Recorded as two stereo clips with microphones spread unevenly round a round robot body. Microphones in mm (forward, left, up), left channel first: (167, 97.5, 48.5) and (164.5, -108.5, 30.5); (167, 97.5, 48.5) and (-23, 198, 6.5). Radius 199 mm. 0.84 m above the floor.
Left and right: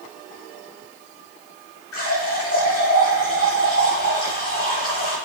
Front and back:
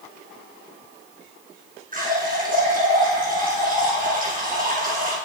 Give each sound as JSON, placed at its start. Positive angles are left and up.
{"t": 1.9, "sound": "a running tap", "azimuth_deg": 100, "distance_m": 6.0}